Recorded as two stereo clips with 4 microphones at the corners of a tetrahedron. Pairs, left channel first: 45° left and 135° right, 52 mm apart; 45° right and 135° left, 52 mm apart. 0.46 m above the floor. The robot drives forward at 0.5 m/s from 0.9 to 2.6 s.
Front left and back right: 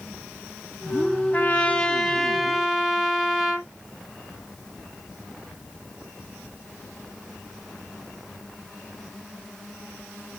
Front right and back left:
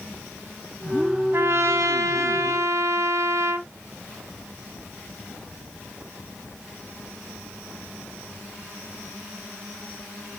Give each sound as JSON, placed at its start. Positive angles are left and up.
{"t": 1.3, "sound": "a trumpet", "azimuth_deg": 100, "distance_m": 0.8}